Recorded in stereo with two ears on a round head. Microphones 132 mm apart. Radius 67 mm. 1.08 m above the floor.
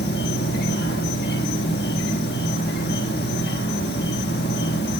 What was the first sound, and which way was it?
An insect, 75° left (ahead or behind).